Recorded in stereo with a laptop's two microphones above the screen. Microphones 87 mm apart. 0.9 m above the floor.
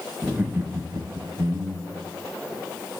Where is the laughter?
10° right (ahead or behind), 0.6 m; by 2.1 s 55° right (ahead or behind), 1.0 m.